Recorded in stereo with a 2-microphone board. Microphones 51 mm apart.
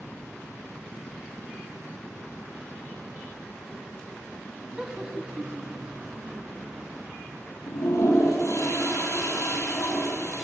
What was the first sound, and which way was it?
Laughter, 20° right (ahead or behind).